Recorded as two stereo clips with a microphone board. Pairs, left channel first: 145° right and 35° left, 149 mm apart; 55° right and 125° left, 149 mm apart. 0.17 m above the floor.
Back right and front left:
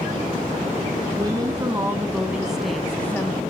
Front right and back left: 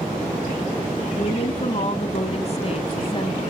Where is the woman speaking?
20° right, 1.7 m; by 3.4 s 80° right, 1.2 m.